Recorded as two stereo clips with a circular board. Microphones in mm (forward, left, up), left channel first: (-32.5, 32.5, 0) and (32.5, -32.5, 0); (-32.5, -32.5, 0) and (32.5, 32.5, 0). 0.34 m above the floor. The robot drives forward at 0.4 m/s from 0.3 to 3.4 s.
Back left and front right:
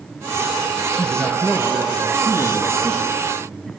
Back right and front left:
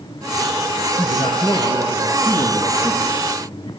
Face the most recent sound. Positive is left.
turn(degrees=-130)